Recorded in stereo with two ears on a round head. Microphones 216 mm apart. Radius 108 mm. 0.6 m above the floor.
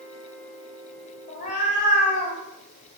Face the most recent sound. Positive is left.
turn(degrees=30)  # may be behind; listen again after turning